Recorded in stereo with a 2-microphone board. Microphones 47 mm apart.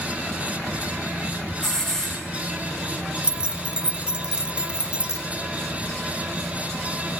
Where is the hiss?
10° left (ahead or behind), 9 m.